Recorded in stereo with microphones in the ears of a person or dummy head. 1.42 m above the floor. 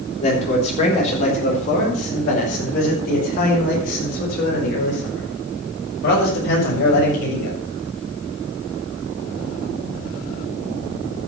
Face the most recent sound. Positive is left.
turn(degrees=65)  # may be behind; listen again after turning